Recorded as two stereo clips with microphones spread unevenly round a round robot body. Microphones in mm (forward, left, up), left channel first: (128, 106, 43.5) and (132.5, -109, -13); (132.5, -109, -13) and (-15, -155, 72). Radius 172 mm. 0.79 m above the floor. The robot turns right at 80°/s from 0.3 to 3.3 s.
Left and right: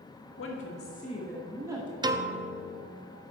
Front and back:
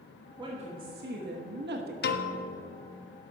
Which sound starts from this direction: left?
A woman speaking, at 0.4 s.